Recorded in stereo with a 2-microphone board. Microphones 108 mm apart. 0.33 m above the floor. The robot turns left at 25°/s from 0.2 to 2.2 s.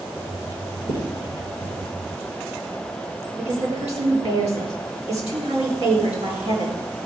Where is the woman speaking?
80° right, 4.5 m.